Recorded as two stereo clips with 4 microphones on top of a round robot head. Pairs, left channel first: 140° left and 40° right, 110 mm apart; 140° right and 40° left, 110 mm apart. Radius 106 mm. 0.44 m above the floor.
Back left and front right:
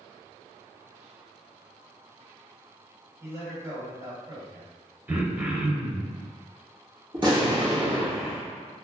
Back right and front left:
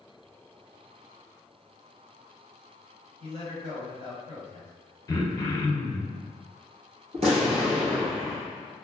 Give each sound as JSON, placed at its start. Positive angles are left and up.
{"t": 3.2, "sound": "a man speaking", "azimuth_deg": 20, "distance_m": 2.0}
{"t": 5.1, "sound": "throat clearing", "azimuth_deg": -105, "distance_m": 0.8}
{"t": 7.1, "sound": "an explosion", "azimuth_deg": 5, "distance_m": 1.3}